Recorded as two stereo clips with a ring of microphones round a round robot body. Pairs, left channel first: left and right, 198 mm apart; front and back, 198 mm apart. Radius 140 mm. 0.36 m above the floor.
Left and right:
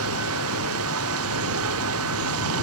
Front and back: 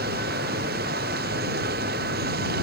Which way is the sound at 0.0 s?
120° right.